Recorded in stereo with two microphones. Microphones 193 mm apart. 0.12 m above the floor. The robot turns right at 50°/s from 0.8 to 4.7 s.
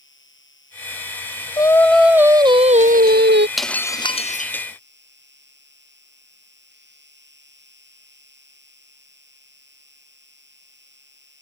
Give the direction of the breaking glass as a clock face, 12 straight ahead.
12 o'clock.